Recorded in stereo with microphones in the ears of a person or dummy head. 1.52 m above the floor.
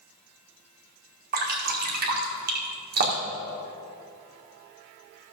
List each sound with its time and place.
1.3 s dripping: 50° right (ahead or behind), 1.8 m